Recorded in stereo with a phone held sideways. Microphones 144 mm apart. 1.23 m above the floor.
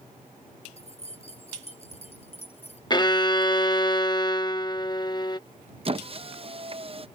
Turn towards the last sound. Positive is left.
turn(degrees=-40)  # may be behind; listen again after turning